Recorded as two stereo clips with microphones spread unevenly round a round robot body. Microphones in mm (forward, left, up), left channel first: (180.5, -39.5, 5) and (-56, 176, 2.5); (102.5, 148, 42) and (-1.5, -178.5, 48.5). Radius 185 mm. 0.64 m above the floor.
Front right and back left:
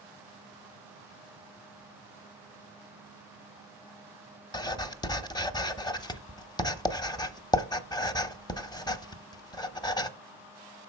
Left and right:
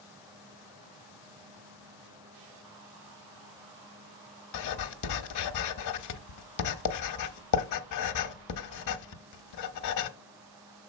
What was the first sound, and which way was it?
Writing, 35° left.